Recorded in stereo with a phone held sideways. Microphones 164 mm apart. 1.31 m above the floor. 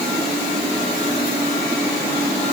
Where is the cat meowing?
No cat meowing in this recording.